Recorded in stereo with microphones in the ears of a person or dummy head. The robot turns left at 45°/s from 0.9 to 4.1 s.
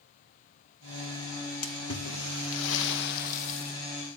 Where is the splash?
125° left, 1.3 m; by 3.8 s 30° left, 1.3 m.